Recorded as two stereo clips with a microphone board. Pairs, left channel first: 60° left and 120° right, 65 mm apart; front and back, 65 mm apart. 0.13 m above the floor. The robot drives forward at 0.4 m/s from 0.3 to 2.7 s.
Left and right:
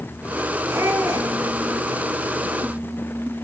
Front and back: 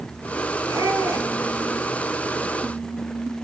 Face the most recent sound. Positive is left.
turn(degrees=-160)